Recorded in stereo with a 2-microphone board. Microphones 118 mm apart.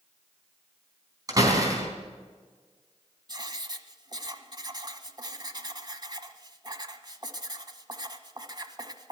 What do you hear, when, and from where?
1.3 s a door slam: 30° right (ahead or behind), 4 m
3.3 s writing: 40° right (ahead or behind), 1.2 m